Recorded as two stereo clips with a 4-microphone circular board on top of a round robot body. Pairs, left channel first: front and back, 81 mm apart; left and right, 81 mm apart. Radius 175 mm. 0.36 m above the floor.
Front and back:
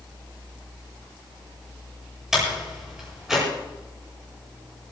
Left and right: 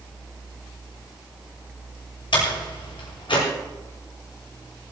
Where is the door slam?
95° left, 9.5 m.